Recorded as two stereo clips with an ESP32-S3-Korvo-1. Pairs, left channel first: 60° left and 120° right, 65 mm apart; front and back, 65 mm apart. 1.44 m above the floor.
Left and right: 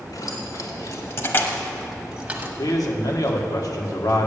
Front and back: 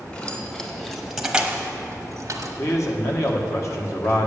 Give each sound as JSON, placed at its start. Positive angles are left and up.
{"t": 0.1, "sound": "keys jangling", "azimuth_deg": 65, "distance_m": 2.0}
{"t": 2.6, "sound": "a man speaking", "azimuth_deg": 40, "distance_m": 1.5}